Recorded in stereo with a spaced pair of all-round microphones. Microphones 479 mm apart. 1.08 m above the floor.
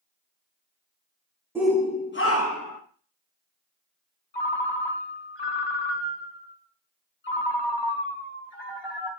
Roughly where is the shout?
Centre.